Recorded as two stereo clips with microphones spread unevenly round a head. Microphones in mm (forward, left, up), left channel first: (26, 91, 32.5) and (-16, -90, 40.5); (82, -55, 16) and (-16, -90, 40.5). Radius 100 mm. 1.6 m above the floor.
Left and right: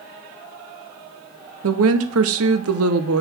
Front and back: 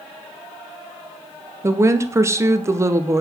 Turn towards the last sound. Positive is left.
turn(degrees=-105)